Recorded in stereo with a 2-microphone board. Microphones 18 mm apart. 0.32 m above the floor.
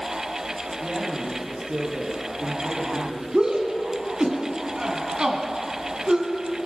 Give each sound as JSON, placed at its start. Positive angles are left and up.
{"t": 0.8, "sound": "a man speaking", "side_deg": -80, "distance_m": 8.0}
{"t": 3.3, "sound": "a shout", "side_deg": -65, "distance_m": 3.0}